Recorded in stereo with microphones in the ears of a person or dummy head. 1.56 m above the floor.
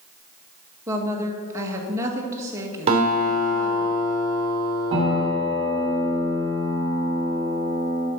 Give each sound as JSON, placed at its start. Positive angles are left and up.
{"t": 0.9, "sound": "a woman speaking", "side_deg": -15, "distance_m": 1.7}
{"t": 2.9, "sound": "a guitar", "side_deg": -35, "distance_m": 3.0}
{"t": 4.9, "sound": "a piano", "side_deg": -30, "distance_m": 3.0}